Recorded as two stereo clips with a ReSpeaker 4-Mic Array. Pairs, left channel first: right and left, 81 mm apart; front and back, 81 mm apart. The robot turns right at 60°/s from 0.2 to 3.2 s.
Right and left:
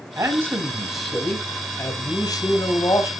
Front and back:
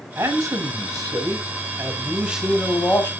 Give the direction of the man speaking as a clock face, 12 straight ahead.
8 o'clock.